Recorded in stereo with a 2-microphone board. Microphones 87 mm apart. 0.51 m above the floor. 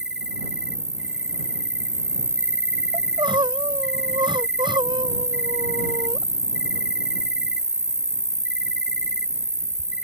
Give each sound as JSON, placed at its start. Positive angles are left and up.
{"t": 0.0, "sound": "an insect", "side_deg": -10}
{"t": 2.9, "sound": "crying", "side_deg": -60}